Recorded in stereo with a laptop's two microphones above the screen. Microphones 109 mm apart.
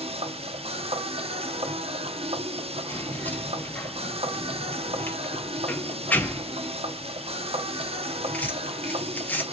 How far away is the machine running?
About 0.9 m.